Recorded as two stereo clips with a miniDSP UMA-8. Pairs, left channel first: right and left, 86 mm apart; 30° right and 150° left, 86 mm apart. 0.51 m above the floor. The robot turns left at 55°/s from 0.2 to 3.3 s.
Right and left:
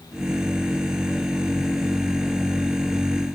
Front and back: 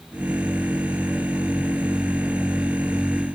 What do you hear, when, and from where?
Only background noise.